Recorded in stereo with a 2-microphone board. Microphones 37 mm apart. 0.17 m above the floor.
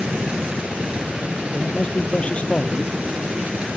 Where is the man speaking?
35° left (ahead or behind).